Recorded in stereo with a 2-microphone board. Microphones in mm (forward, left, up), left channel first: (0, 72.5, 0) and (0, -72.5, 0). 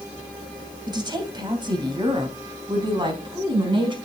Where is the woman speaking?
30° right (ahead or behind), 2.5 m; by 4.0 s 35° right (ahead or behind), 4 m.